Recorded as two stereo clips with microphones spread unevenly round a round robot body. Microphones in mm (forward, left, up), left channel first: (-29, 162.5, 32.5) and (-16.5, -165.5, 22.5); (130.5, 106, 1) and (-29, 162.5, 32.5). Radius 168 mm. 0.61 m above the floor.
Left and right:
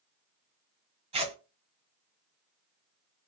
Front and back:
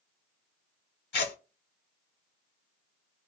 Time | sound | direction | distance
1.1 | tearing paper | 15° right | 1.0 m